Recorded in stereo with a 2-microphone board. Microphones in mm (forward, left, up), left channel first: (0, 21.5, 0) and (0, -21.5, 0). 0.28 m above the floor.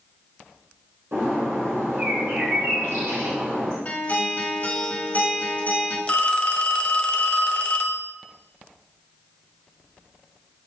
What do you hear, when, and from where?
1.1 s a bird: 85° right, 3.5 m
3.9 s a guitar: 35° left (ahead or behind), 1.8 m
6.1 s a phone ringing: 30° left (ahead or behind), 0.5 m